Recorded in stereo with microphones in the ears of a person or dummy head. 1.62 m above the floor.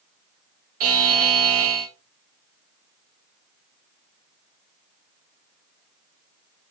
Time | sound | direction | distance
0.8 | a buzzer | 45° right (ahead or behind) | 0.7 m